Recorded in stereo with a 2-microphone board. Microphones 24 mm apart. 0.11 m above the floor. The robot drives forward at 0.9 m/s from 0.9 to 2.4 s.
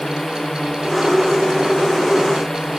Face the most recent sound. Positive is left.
turn(degrees=15)  # may be behind; listen again after turning